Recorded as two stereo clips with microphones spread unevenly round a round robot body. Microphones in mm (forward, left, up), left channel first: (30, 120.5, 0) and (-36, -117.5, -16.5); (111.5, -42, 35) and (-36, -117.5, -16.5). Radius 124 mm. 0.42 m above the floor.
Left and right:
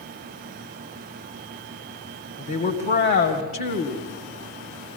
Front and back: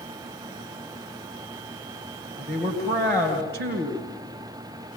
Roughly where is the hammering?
No hammering in this recording.